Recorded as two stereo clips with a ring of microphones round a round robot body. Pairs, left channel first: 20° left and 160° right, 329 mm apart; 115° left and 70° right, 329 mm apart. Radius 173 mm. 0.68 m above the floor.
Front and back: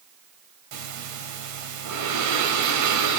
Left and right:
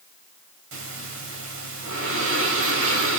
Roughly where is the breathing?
Behind right.